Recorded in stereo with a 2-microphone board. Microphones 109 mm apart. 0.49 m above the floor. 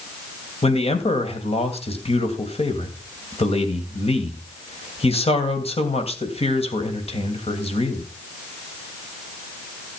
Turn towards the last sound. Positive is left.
turn(degrees=70)  # may be behind; listen again after turning